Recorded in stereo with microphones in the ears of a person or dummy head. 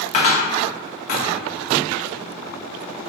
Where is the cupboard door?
40° left (ahead or behind), 0.5 m.